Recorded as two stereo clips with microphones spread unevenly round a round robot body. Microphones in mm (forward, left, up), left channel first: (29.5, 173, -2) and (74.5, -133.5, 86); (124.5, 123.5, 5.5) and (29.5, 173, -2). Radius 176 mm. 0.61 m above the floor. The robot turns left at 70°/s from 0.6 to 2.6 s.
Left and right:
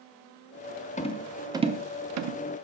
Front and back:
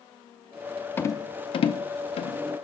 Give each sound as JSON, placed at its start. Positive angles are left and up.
{"t": 1.0, "sound": "a rattle", "azimuth_deg": 45, "distance_m": 0.7}